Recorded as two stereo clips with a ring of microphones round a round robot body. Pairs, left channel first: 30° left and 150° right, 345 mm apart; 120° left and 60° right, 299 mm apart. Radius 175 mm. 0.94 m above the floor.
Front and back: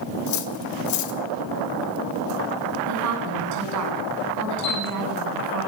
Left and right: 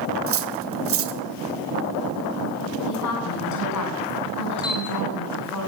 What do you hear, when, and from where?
0.3 s cutlery clinking: 15° right, 2 m
2.9 s a woman speaking: 165° left, 8.5 m
4.6 s a camera shutter: 45° left, 7 m